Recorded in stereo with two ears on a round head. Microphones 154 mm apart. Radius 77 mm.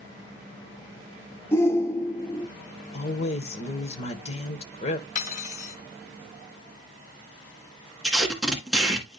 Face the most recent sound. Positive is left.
turn(degrees=0)  # may be behind; listen again after turning